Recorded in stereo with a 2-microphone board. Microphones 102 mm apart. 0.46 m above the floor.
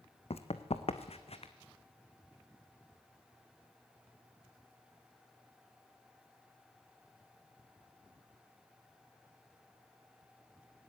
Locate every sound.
0.3 s running footsteps: 70° left (ahead or behind), 1.2 m; by 1.5 s 65° left (ahead or behind), 1.8 m